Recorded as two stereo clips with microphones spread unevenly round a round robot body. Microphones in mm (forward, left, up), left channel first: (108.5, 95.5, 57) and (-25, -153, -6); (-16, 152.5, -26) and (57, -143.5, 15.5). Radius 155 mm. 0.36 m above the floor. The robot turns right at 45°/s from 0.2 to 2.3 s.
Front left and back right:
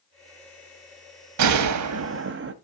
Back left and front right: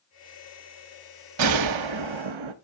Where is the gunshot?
115° right, 0.8 m; by 2.5 s 75° right, 0.8 m.